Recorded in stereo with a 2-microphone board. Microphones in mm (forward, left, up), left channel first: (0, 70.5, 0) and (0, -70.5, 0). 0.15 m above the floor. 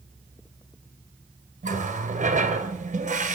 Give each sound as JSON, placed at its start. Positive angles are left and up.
{"t": 1.6, "sound": "a running tap", "side_deg": -55, "distance_m": 1.6}